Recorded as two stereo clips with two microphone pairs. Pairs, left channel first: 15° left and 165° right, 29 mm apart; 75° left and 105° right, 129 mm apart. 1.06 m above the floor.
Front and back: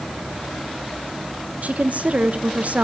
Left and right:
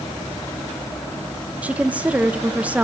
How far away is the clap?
No clap in this recording.